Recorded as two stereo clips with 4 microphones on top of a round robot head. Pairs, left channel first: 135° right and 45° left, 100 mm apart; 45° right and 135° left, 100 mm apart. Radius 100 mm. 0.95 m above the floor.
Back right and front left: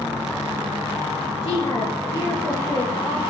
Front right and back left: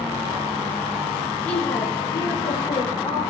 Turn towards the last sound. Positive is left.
turn(degrees=-75)